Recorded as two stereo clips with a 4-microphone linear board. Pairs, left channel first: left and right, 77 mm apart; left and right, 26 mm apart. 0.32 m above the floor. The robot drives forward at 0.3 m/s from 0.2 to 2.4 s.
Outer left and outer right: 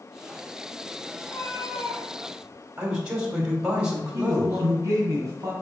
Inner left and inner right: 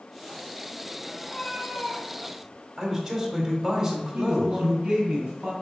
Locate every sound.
1.2 s a cat meowing: 45° left (ahead or behind), 1.8 m; by 2.6 s 55° left (ahead or behind), 1.5 m
2.8 s a man speaking: 15° right (ahead or behind), 2 m
4.1 s a man speaking: 45° right (ahead or behind), 2 m